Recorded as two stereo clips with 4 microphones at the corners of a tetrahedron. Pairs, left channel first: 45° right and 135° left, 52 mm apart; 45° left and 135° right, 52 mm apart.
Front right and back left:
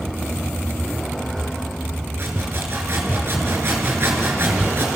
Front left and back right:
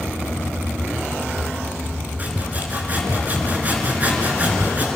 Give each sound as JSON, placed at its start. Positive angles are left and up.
{"t": 2.2, "sound": "sawing", "azimuth_deg": 170, "distance_m": 4.0}